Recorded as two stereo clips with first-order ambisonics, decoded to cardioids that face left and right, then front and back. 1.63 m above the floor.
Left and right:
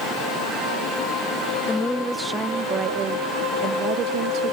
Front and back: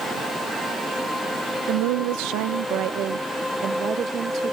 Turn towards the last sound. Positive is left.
turn(degrees=-125)